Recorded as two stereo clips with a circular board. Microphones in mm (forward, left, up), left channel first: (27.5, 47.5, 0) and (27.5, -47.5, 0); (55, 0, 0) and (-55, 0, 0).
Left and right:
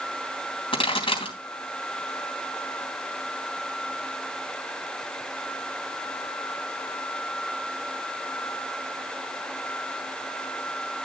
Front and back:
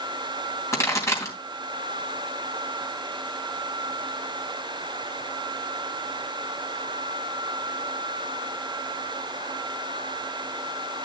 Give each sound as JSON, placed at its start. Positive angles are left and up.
{"t": 0.7, "sound": "a pop", "azimuth_deg": 65, "distance_m": 3.0}